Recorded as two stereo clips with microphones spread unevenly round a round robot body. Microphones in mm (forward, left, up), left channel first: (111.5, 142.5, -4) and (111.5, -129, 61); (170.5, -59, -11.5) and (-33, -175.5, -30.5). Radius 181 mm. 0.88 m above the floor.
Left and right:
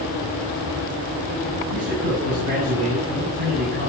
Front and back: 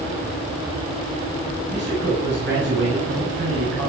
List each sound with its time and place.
1.7 s a man speaking: 110° right, 6.5 m